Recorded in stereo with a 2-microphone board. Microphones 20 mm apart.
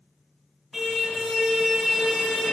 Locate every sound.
0.7 s a car horn: 10° right (ahead or behind), 6.5 m